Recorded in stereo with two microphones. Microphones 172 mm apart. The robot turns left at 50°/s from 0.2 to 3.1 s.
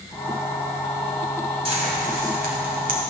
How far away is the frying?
About 2.5 m.